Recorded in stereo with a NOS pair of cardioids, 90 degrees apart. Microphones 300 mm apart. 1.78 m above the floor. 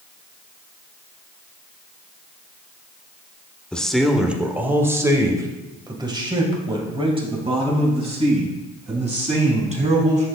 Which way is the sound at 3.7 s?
5° left.